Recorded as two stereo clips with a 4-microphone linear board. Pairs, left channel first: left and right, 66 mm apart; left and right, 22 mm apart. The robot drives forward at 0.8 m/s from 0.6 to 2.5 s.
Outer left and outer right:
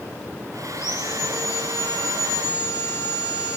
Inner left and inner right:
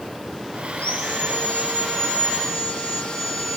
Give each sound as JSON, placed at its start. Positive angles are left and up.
{"t": 0.7, "sound": "sawing", "side_deg": 65, "distance_m": 3.0}